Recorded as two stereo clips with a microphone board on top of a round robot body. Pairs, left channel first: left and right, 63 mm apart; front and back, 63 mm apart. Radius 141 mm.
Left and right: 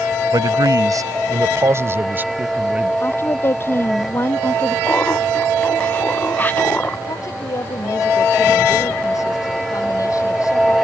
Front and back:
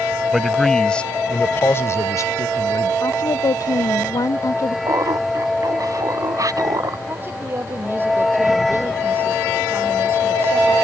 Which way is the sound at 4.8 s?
150° left.